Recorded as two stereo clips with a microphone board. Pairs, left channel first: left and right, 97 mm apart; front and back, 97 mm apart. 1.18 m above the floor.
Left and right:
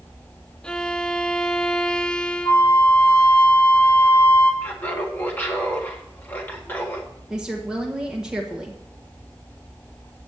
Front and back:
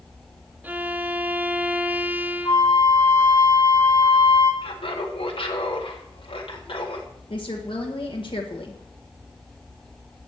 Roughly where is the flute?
Ahead left.